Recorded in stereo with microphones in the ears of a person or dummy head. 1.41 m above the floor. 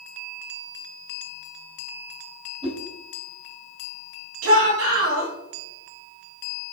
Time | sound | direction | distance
2.6 | a whoosh | 40° right (ahead or behind) | 3 m
4.4 | a shout | 90° right | 3.5 m